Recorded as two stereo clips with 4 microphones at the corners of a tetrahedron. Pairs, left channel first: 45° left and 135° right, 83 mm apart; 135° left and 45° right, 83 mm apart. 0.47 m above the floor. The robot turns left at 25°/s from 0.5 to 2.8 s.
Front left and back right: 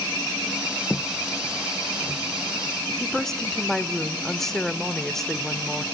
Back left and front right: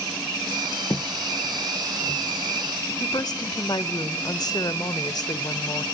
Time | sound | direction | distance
0.9 | footsteps | 115° left | 0.6 m
3.0 | a woman speaking | 130° left | 1.1 m